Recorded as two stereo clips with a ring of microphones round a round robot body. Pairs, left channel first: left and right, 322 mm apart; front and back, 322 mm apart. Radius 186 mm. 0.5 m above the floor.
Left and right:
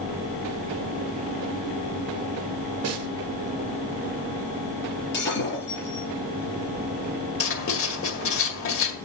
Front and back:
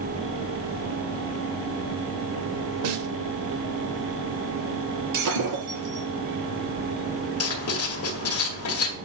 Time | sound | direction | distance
2.8 | a snare drum | 135° right | 1.0 m
5.1 | breaking glass | 150° left | 6 m
7.4 | writing | 45° left | 2.0 m